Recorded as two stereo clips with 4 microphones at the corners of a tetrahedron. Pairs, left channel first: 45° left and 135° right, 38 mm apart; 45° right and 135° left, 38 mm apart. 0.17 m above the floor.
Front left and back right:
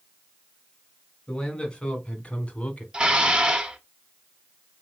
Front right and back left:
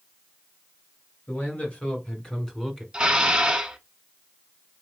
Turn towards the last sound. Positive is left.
turn(degrees=-175)